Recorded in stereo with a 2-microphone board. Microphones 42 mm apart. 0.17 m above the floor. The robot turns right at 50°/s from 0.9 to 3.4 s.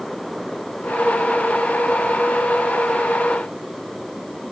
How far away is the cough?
I don't hear a cough.